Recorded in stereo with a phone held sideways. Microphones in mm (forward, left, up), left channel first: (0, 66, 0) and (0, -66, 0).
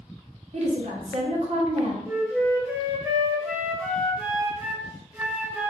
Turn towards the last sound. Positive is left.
turn(degrees=-15)  # may be behind; listen again after turning